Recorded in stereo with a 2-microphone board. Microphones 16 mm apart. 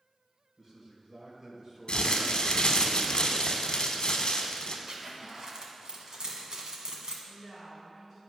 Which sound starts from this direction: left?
Crumpling, at 1.9 s.